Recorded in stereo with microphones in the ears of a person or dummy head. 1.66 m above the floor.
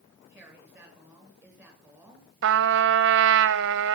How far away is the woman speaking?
About 7.5 m.